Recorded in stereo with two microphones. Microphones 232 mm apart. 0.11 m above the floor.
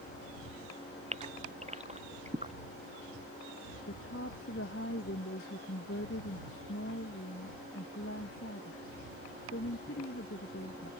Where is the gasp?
30° right (ahead or behind).